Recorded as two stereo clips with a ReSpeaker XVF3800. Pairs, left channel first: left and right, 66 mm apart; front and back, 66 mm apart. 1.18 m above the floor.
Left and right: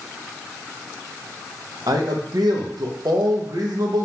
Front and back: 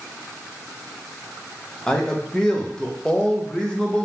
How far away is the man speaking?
About 0.8 m.